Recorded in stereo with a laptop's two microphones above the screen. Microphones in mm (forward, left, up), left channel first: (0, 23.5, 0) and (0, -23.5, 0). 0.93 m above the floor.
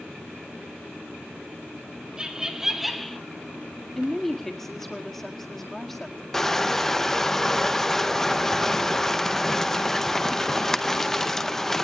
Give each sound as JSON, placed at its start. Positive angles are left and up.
{"t": 2.2, "sound": "laughter", "side_deg": -20, "distance_m": 2.5}
{"t": 4.0, "sound": "a woman speaking", "side_deg": 5, "distance_m": 1.8}
{"t": 6.3, "sound": "crushing", "side_deg": 10, "distance_m": 0.6}